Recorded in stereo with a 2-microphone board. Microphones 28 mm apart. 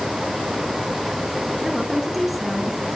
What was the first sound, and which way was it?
A woman speaking, centre (ahead or behind).